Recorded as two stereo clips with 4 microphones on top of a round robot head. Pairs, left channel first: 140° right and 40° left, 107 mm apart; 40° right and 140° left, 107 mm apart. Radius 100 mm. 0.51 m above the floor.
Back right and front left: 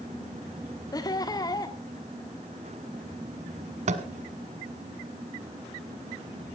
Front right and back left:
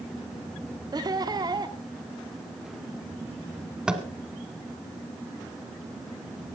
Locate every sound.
0.9 s laughter: straight behind, 1.4 m
3.9 s tapping: 60° left, 1.2 m